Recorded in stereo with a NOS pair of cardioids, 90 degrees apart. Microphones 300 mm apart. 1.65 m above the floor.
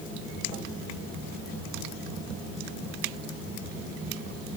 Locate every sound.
Only background noise.